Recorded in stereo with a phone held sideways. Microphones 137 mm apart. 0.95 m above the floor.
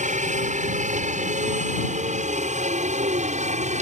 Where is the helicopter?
65° right (ahead or behind); by 3.8 s 60° right (ahead or behind).